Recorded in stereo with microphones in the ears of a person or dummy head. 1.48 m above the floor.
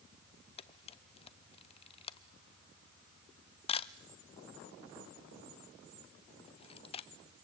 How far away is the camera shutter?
About 0.5 m.